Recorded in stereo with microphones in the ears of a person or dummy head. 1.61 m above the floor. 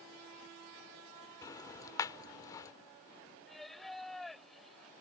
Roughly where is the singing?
Centre.